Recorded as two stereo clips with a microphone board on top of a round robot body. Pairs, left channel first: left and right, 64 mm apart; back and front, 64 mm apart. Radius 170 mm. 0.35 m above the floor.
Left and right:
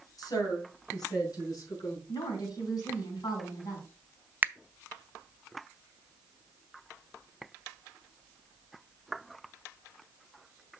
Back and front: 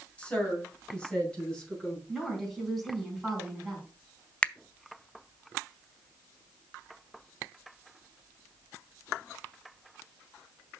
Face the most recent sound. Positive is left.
turn(degrees=-125)